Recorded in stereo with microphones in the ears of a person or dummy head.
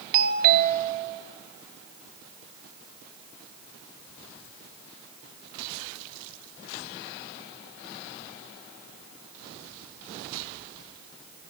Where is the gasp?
No gasp in this recording.